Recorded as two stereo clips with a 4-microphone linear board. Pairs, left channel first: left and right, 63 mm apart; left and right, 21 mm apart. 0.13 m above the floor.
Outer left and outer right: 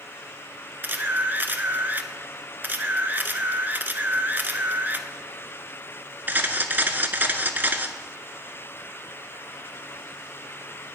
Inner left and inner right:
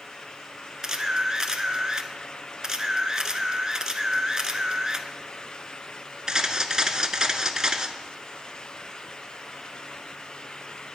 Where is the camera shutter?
30° right (ahead or behind), 0.6 m.